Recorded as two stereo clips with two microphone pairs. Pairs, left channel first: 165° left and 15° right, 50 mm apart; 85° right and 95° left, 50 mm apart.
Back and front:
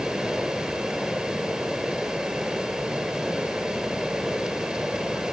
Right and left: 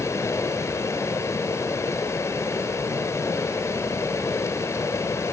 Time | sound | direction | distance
0.0 | running water | 90° right | 2 m